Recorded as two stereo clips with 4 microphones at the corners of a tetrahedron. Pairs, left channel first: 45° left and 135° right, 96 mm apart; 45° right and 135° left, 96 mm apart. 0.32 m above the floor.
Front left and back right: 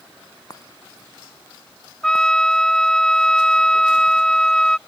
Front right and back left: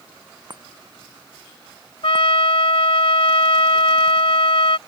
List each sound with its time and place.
0.5 s a chime: 95° left
2.0 s a trumpet: 40° right